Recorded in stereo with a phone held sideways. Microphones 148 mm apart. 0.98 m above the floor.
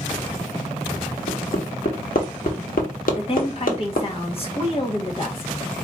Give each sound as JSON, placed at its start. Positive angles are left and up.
{"t": 1.3, "sound": "hammering", "side_deg": 75, "distance_m": 1.4}
{"t": 3.2, "sound": "a woman speaking", "side_deg": 40, "distance_m": 1.3}